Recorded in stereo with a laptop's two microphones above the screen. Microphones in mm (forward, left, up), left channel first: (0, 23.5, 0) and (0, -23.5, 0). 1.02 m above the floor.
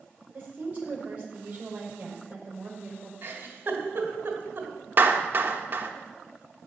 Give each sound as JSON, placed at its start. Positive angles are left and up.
{"t": 0.3, "sound": "a woman speaking", "side_deg": -30, "distance_m": 5.0}
{"t": 3.2, "sound": "a giggle", "side_deg": -40, "distance_m": 2.5}
{"t": 5.0, "sound": "a clap", "side_deg": -40, "distance_m": 1.2}